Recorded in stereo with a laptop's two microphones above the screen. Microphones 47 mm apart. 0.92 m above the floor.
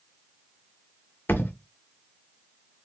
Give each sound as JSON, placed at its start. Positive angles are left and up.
{"t": 1.3, "sound": "a thud", "side_deg": 50, "distance_m": 0.9}